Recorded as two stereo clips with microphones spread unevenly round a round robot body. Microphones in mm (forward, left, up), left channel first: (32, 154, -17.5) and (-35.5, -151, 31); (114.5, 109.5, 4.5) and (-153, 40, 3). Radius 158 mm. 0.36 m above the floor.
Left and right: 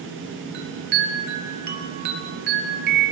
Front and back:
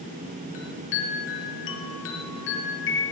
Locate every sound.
0.5 s a chime: 40° right, 3.5 m